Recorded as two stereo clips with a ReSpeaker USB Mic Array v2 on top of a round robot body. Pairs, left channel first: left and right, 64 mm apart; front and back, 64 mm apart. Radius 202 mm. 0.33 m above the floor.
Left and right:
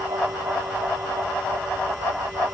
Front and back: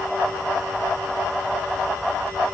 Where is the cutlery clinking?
I don't hear cutlery clinking.